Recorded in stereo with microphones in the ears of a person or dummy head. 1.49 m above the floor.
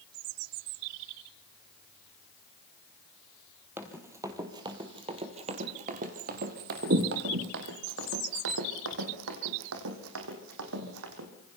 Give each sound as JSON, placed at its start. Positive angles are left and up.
{"t": 3.8, "sound": "running footsteps", "side_deg": -10, "distance_m": 2.5}